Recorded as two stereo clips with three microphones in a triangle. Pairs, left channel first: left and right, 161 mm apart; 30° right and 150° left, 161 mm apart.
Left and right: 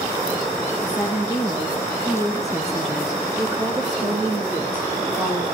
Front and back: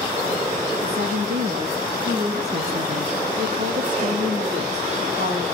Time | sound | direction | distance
0.8 | a woman speaking | 170° left | 9.5 m